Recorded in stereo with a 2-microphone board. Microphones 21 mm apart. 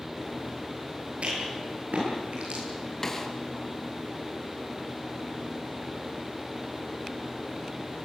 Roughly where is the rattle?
Right.